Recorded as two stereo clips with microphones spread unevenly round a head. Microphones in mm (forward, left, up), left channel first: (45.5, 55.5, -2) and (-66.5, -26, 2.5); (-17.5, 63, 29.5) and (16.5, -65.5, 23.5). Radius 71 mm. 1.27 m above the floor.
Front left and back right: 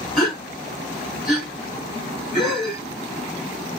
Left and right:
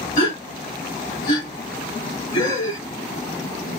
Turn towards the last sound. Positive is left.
turn(degrees=130)